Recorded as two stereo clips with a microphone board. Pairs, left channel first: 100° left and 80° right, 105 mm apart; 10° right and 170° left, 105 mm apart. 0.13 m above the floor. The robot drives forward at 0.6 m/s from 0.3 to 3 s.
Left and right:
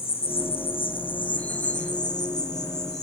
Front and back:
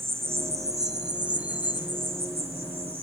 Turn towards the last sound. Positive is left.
turn(degrees=150)